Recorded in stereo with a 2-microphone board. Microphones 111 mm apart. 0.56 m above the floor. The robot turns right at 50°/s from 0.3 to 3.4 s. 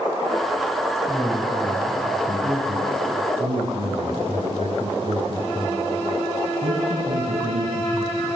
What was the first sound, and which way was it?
A man speaking, 170° left.